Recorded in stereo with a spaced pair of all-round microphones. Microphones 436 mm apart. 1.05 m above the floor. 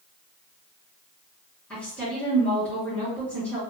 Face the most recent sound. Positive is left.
turn(degrees=5)  # may be behind; listen again after turning